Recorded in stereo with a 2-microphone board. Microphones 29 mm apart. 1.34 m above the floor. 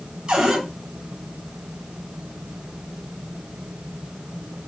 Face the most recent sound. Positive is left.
turn(degrees=-35)  # may be behind; listen again after turning